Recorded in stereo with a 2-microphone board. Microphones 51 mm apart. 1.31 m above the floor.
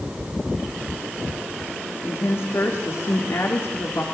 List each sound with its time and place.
2.0 s a woman speaking: 55° left (ahead or behind), 2.5 m